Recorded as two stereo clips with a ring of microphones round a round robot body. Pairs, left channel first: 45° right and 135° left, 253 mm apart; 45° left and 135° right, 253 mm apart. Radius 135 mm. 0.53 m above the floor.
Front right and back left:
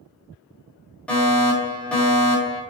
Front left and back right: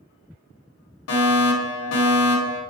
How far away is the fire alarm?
About 4 m.